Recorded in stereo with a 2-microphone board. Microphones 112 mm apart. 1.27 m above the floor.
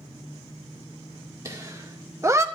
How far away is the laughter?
About 2.5 m.